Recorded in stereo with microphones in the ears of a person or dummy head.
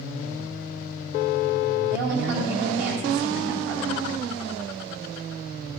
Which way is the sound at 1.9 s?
70° right (ahead or behind).